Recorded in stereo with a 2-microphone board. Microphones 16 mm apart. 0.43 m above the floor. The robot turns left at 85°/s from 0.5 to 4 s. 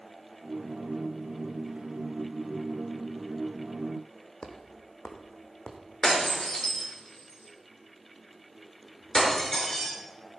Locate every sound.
4.4 s footsteps: 55° left (ahead or behind), 1.3 m; by 5.8 s 75° left (ahead or behind), 1.8 m
6.0 s breaking glass: 40° left (ahead or behind), 4.5 m